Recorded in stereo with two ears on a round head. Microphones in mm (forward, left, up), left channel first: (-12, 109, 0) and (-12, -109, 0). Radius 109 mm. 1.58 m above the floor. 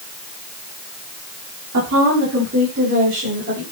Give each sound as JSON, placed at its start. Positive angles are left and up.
{"t": 1.7, "sound": "a woman speaking", "side_deg": -60, "distance_m": 5.0}